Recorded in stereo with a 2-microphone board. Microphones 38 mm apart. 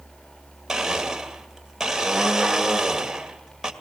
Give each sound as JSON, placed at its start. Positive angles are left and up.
{"t": 0.7, "sound": "a blender", "side_deg": -10, "distance_m": 1.9}